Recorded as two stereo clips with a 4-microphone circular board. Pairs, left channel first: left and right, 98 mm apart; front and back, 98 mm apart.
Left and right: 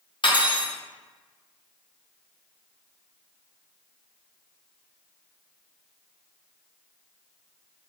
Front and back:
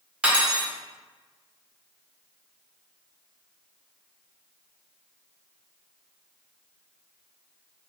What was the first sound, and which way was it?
Cutlery clinking, 100° left.